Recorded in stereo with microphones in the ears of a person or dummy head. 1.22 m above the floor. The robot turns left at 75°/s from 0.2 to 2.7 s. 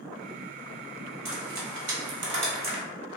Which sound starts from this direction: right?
Frying, at 1.2 s.